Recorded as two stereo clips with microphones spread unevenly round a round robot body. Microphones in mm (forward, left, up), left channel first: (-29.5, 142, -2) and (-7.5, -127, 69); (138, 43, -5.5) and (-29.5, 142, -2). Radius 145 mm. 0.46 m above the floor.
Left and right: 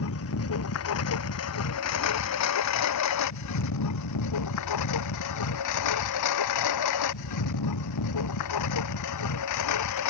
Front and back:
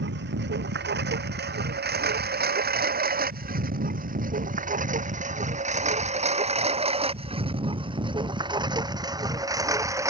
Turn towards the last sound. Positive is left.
turn(degrees=75)